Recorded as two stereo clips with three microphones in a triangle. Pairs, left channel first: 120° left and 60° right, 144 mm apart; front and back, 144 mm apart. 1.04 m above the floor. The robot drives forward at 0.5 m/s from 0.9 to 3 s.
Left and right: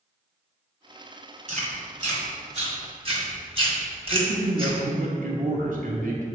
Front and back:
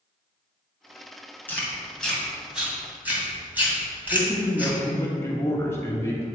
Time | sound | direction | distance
1.5 | chewing | 75° right | 1.8 m
4.1 | a man speaking | 70° right | 1.2 m